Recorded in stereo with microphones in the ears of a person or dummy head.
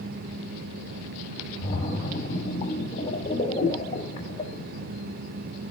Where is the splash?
30° left (ahead or behind), 3 m.